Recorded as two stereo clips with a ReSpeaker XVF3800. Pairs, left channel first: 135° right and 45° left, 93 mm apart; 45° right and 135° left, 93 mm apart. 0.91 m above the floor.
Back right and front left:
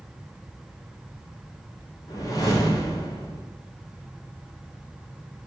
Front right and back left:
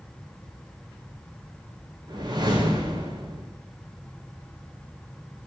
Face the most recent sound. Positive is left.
turn(degrees=180)